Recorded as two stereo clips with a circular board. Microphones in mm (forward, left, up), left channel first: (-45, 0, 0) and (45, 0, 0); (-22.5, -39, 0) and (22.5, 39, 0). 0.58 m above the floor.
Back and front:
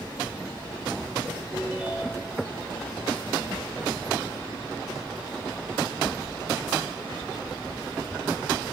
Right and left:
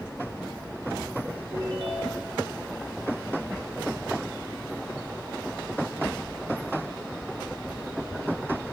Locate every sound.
1.5 s a ringtone: 85° left, 7 m